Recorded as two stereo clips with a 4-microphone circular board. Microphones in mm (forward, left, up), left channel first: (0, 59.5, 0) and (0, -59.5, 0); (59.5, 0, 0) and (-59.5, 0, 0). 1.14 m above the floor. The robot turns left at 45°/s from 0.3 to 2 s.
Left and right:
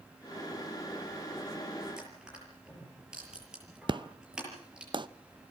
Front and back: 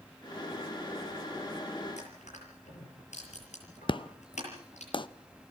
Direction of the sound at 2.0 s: 5° right.